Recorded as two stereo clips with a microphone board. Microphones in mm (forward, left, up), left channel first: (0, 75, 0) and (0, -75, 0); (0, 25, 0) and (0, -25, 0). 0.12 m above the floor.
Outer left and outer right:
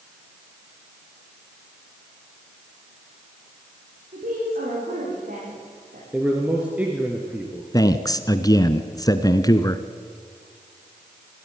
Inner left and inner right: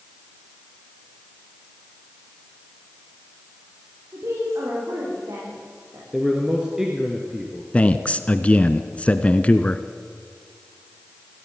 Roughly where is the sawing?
I don't hear sawing.